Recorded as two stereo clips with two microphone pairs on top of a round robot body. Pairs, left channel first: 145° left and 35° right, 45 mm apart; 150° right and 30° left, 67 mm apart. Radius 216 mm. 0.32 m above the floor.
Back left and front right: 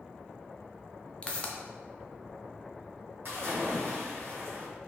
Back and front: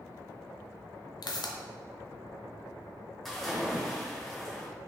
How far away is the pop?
About 0.7 m.